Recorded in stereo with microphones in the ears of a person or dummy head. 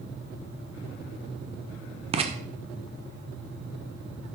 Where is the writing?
30° right (ahead or behind), 0.6 m.